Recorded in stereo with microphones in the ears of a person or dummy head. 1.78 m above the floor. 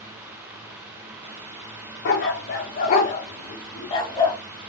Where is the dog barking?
45° left (ahead or behind), 1.8 m; by 4.4 s 15° left (ahead or behind), 1.8 m.